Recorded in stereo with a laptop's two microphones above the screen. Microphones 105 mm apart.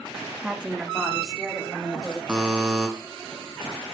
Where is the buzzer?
10° right (ahead or behind), 1.5 m.